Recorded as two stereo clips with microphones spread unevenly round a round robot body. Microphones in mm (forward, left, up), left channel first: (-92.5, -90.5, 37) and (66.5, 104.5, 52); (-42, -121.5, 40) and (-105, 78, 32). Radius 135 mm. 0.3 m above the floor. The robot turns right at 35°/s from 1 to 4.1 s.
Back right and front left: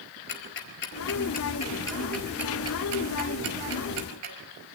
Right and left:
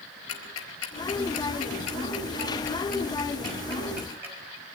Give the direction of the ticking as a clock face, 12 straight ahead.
3 o'clock.